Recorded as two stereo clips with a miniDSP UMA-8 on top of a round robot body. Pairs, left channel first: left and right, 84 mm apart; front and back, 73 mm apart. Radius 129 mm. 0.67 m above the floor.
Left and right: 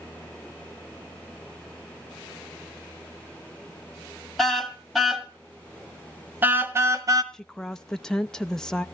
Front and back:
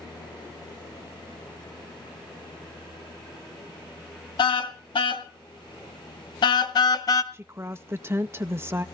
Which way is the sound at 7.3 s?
170° left.